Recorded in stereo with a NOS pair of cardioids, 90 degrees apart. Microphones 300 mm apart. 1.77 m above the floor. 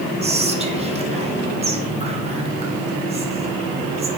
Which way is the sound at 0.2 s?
20° right.